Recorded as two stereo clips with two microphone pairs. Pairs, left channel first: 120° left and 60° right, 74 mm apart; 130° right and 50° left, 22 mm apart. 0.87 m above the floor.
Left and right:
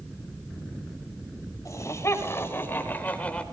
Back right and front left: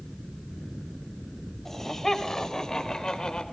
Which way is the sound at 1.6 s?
160° left.